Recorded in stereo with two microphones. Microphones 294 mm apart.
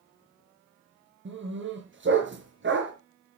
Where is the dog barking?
40° right (ahead or behind), 4.5 m.